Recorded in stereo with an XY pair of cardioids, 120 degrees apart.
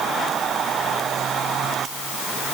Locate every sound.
Only background noise.